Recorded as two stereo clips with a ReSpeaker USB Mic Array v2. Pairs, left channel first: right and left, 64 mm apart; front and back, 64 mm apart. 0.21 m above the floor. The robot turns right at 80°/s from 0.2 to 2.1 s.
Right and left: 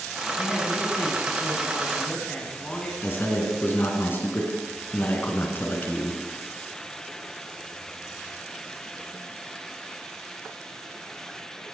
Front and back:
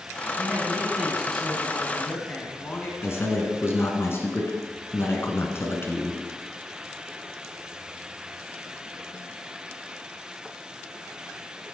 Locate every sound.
0.4 s a man speaking: 170° right, 1.9 m; by 2.9 s 30° right, 1.9 m
3.0 s a man speaking: 40° right, 2 m